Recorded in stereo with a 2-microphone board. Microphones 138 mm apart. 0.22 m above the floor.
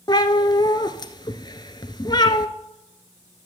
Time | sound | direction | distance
0.1 | a cat meowing | 35° left (ahead or behind) | 0.9 m